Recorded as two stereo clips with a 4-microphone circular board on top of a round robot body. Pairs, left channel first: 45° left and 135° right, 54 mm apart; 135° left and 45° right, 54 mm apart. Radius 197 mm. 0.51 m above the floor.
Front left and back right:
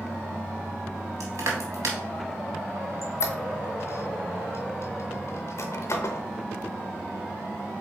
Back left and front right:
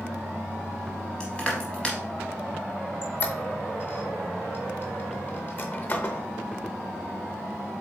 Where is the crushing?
155° right, 0.7 m.